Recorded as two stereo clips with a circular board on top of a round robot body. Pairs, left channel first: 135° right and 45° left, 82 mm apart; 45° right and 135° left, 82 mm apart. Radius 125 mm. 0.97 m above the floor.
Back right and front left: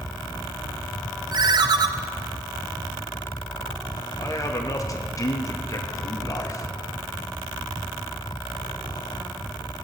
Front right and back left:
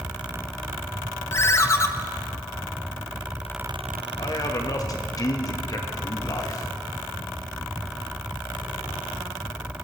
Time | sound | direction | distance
1.3 | a ringtone | 10° left | 0.8 m
4.2 | a man speaking | 90° right | 1.8 m